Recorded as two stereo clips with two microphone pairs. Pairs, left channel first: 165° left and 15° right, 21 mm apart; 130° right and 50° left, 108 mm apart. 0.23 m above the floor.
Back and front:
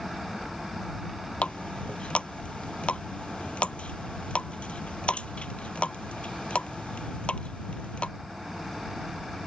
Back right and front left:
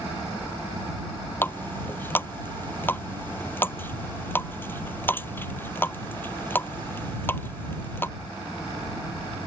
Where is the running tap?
160° left.